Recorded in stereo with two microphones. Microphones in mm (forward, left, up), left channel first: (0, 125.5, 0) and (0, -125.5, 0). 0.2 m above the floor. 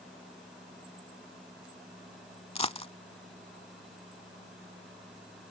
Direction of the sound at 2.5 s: 25° left (ahead or behind).